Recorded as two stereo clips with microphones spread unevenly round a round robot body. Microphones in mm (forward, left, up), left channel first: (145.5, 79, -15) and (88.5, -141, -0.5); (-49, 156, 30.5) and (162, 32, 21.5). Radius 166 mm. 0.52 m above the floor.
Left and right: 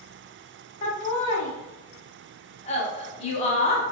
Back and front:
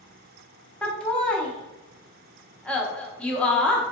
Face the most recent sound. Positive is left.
turn(degrees=65)